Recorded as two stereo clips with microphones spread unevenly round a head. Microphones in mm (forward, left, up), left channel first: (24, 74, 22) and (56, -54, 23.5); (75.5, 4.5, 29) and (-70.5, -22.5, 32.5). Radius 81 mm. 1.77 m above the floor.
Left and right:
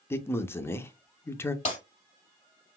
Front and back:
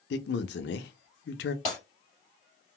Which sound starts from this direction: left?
Breaking glass, at 1.6 s.